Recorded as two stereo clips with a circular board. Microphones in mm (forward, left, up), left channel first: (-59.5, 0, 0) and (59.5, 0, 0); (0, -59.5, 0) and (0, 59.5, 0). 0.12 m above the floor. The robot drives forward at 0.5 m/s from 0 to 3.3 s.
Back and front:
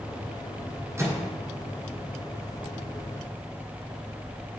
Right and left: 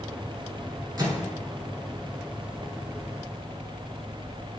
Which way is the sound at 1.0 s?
50° left.